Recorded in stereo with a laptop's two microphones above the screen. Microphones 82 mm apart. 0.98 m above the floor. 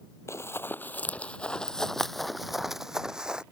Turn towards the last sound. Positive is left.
turn(degrees=-10)  # may be behind; listen again after turning